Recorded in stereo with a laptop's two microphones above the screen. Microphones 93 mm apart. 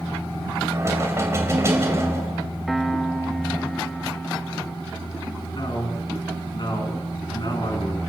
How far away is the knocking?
About 3 m.